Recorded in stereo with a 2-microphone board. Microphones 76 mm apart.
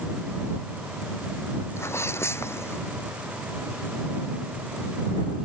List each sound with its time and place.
1.8 s a sneeze: 35° left (ahead or behind)